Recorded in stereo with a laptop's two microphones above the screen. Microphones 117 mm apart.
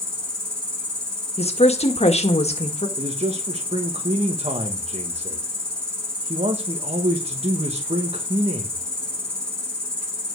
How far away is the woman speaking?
About 1.6 m.